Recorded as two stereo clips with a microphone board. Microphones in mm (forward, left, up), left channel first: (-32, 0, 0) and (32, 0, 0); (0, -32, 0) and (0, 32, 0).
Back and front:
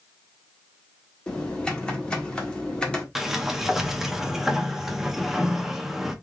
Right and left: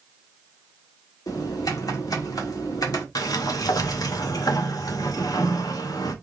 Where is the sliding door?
85° right, 0.8 m.